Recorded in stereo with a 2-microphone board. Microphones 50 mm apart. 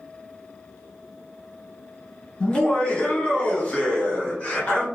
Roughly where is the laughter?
Centre.